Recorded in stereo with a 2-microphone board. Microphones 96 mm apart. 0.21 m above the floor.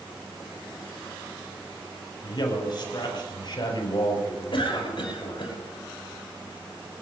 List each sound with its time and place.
2.2 s a man speaking: 55° left (ahead or behind), 6.5 m
4.5 s a cough: 65° left (ahead or behind), 7 m